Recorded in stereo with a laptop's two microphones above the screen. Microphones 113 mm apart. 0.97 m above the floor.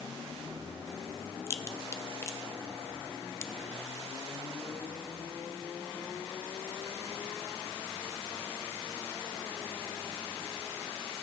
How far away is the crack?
About 0.5 m.